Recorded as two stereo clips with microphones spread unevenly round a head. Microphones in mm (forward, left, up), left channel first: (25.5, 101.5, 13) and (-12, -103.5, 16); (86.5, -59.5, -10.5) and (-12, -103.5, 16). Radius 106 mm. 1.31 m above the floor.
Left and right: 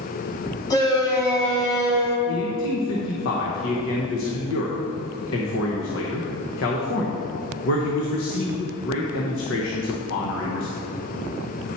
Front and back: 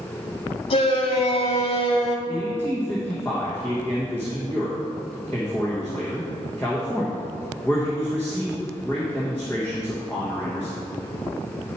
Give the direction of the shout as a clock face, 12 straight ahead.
12 o'clock.